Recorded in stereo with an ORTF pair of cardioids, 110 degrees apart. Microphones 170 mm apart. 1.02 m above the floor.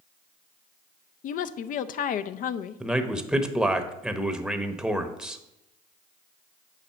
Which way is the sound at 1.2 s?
60° left.